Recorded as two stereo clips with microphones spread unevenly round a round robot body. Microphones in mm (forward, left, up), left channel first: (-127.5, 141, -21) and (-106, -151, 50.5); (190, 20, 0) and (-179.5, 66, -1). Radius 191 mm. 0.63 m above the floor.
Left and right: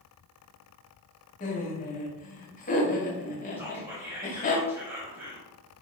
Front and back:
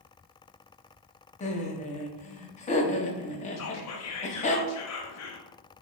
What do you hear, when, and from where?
1.4 s laughter: 60° left, 0.7 m
3.6 s whispering: 10° left, 0.9 m